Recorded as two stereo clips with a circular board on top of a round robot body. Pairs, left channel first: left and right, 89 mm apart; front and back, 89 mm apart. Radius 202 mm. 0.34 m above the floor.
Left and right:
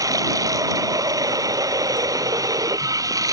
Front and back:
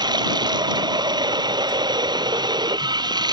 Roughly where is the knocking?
No knocking in this recording.